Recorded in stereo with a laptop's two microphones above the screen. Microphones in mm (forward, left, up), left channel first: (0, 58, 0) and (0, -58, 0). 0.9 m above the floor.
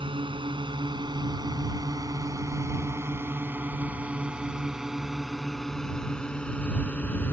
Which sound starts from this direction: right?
A drone, at 0.0 s.